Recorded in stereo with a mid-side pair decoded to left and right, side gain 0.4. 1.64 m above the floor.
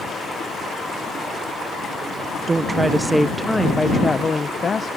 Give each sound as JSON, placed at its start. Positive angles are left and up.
{"t": 2.5, "sound": "a woman speaking", "azimuth_deg": -35}